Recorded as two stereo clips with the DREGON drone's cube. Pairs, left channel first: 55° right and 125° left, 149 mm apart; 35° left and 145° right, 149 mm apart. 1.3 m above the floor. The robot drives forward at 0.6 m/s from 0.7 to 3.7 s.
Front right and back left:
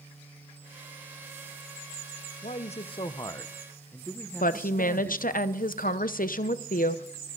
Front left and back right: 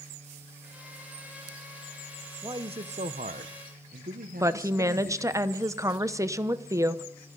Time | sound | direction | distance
2.4 | a man speaking | 85° right | 0.8 m
4.4 | a woman speaking | 75° right | 0.7 m